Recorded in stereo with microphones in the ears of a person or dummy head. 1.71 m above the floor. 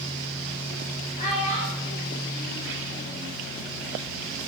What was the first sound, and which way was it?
A child speaking, 35° left (ahead or behind).